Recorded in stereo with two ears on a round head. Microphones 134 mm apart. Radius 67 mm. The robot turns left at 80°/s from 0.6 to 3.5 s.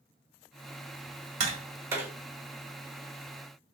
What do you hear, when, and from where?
1.4 s tapping: 45° right (ahead or behind), 1.3 m; by 2.1 s 5° right (ahead or behind), 1.3 m